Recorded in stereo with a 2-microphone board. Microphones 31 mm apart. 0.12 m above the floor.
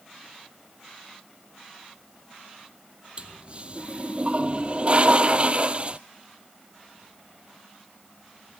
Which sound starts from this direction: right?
A toilet flushing, at 3.2 s.